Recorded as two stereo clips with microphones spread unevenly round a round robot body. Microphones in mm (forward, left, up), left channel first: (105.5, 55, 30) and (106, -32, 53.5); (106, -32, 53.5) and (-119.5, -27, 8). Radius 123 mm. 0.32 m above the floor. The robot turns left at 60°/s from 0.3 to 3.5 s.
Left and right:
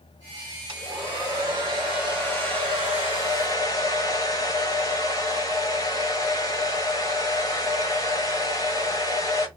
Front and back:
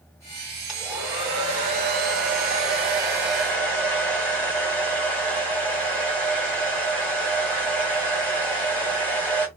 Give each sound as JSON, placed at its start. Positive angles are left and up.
{"t": 0.7, "sound": "a hair dryer", "azimuth_deg": -100, "distance_m": 1.4}